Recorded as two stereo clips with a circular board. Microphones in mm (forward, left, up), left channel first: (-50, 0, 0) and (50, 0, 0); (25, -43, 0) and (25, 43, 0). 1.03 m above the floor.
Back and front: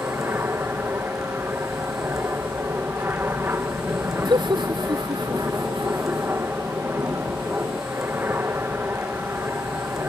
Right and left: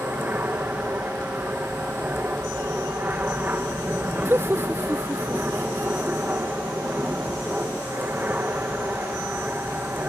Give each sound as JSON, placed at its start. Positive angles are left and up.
{"t": 0.0, "sound": "an aircraft", "azimuth_deg": 45}
{"t": 4.2, "sound": "laughter", "azimuth_deg": 30}